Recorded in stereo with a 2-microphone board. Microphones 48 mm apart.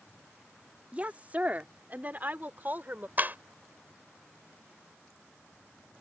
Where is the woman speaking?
30° right (ahead or behind); by 3.1 s 40° right (ahead or behind).